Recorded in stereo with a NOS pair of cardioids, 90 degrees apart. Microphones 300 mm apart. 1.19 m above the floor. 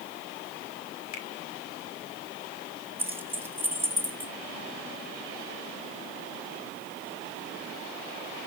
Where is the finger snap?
60° left, 2.5 m.